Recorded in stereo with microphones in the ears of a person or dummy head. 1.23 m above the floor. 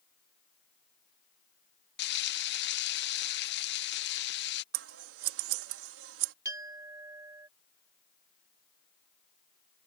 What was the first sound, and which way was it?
Frying, 55° left (ahead or behind).